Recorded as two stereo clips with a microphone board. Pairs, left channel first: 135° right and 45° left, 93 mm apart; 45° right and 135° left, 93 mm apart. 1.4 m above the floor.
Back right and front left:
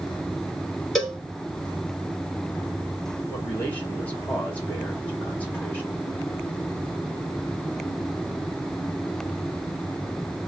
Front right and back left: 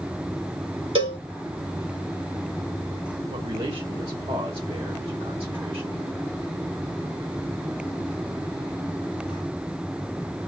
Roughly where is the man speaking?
Behind left.